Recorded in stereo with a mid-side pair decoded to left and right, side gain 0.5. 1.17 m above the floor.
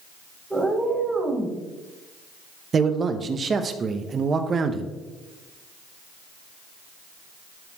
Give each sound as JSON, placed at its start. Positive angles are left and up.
{"t": 0.5, "sound": "a cat meowing", "azimuth_deg": -10, "distance_m": 2.5}
{"t": 2.7, "sound": "a man speaking", "azimuth_deg": -40, "distance_m": 1.0}